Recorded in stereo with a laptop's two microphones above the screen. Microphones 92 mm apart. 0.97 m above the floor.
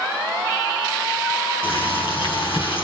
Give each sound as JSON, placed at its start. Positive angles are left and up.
{"t": 1.6, "sound": "boiling", "side_deg": 80, "distance_m": 4.5}